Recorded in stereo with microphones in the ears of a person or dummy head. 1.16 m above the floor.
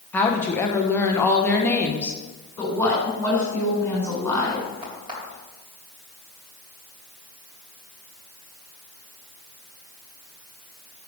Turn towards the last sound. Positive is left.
turn(degrees=-30)  # may be behind; listen again after turning